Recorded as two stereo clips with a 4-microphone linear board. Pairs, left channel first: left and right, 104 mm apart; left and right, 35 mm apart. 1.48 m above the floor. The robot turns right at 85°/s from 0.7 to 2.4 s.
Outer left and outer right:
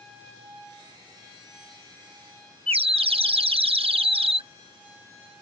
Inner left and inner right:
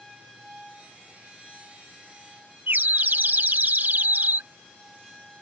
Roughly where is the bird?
Right.